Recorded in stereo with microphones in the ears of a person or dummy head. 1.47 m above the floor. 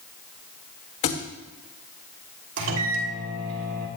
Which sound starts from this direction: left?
A thud, at 1.0 s.